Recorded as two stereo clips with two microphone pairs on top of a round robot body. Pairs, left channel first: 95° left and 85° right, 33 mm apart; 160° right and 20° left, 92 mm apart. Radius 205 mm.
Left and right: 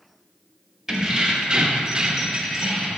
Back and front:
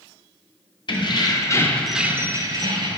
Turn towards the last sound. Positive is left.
turn(degrees=-10)